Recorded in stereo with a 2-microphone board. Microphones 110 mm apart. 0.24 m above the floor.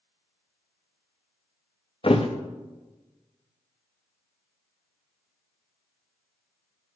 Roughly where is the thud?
Left.